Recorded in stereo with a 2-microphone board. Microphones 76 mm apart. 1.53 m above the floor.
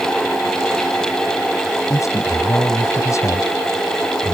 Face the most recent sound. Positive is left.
turn(degrees=40)  # may be behind; listen again after turning